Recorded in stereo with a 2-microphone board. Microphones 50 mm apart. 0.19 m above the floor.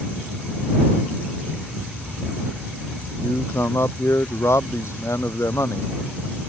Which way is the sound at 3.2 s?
75° left (ahead or behind).